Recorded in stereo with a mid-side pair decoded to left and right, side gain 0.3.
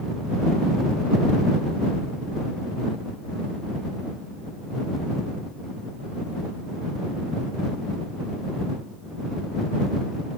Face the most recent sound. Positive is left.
No sound to turn to.